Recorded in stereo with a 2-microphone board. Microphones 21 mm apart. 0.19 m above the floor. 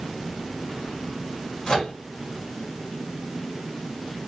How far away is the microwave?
About 1.3 m.